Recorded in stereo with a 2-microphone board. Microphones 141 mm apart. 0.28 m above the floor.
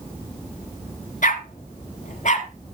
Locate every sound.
1.2 s a dog barking: 70° left (ahead or behind), 1.3 m; by 2.5 s 65° left (ahead or behind), 2 m